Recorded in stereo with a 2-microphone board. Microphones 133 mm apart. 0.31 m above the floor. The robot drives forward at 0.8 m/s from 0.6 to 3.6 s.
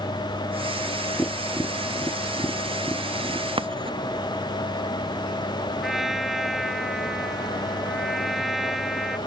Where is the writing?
40° right (ahead or behind).